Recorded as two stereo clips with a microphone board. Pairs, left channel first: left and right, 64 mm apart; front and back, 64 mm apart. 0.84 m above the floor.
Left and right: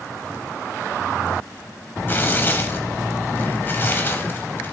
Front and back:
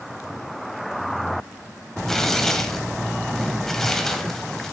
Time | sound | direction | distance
2.1 | tearing paper | 80° left | 0.7 m